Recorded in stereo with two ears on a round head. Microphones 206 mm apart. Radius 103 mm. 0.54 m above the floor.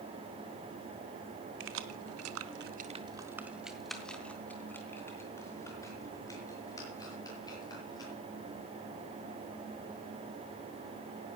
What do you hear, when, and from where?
1.6 s keys jangling: 55° right (ahead or behind), 1.4 m; by 8.1 s 20° left (ahead or behind), 7.5 m